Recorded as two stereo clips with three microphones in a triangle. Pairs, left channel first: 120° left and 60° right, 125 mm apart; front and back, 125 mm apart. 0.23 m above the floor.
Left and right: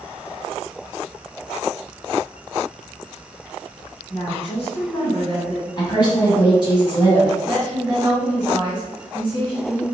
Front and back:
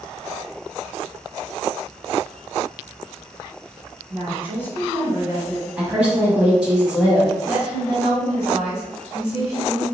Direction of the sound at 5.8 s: 105° left.